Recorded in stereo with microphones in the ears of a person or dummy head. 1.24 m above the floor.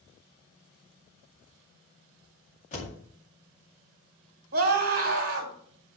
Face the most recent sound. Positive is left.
turn(degrees=-50)  # may be behind; listen again after turning